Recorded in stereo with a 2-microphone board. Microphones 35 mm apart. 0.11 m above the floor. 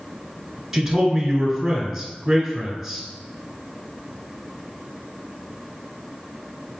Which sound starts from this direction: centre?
A man speaking, at 0.7 s.